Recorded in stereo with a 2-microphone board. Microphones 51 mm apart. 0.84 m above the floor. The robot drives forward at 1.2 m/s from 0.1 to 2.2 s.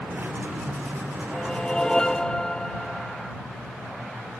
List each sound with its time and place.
1.3 s a whoosh: 20° left (ahead or behind); by 3.4 s 15° left (ahead or behind)